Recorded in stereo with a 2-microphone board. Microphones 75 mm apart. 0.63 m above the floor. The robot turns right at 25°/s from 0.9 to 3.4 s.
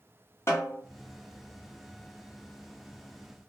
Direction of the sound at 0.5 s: 35° left (ahead or behind).